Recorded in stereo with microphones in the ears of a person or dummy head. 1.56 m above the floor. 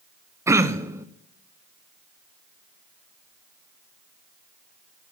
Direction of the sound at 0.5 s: 25° right (ahead or behind).